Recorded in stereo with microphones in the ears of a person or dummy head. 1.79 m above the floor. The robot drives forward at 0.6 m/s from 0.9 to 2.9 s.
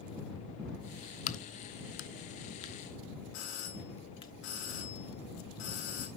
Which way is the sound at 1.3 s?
35° left (ahead or behind).